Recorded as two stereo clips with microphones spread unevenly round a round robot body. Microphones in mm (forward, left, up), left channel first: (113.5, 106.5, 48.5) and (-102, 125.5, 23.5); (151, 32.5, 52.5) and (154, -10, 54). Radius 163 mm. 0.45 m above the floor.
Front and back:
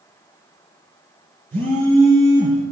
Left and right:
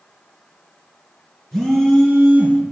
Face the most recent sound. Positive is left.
turn(degrees=-140)